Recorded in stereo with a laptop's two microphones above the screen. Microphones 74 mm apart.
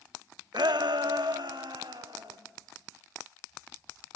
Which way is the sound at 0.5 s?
70° right (ahead or behind).